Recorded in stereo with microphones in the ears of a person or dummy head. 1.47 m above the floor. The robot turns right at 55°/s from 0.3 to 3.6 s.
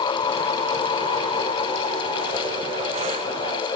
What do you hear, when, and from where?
Only background noise.